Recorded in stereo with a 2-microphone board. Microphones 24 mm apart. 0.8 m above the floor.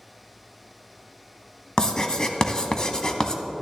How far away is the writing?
About 0.8 m.